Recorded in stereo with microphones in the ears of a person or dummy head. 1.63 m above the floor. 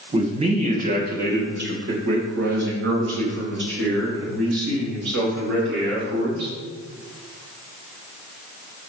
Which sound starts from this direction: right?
A man speaking, at 0.1 s.